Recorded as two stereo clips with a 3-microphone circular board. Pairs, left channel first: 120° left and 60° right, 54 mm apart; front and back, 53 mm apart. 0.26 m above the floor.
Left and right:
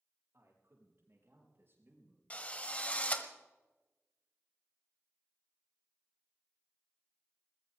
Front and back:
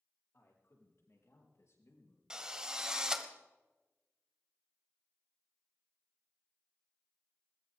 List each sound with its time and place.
0.3 s a man speaking: 30° right, 7.5 m; by 2.2 s 15° right, 5 m
2.3 s a drill: 120° left, 1.7 m